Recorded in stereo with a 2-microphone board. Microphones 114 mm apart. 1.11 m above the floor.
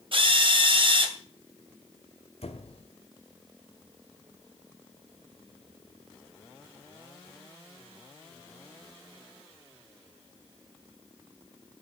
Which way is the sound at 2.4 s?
65° left (ahead or behind).